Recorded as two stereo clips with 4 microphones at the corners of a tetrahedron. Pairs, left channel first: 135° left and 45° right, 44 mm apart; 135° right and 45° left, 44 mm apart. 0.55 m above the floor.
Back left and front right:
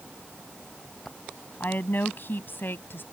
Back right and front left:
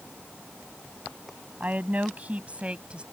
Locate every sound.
1.6 s a woman speaking: 100° left; by 3.0 s 110° left